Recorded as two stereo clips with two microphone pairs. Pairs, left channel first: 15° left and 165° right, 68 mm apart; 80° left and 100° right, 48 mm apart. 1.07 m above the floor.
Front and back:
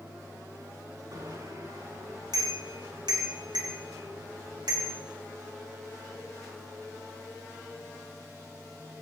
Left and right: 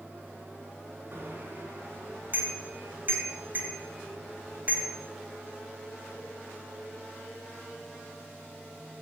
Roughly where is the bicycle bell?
Behind right.